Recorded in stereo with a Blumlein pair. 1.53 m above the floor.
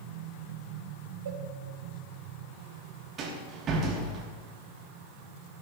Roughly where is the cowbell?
Ahead right.